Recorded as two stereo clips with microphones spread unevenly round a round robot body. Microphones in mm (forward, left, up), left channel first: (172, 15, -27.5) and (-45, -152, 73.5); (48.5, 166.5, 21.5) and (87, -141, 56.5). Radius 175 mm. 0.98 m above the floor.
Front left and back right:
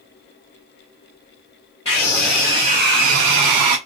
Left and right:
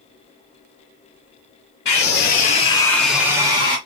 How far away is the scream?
About 0.8 m.